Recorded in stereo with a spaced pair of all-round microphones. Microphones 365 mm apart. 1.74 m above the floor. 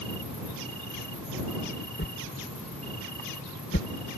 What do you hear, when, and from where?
0.0 s an insect: 20° left (ahead or behind)
2.0 s a whoosh: 35° left (ahead or behind)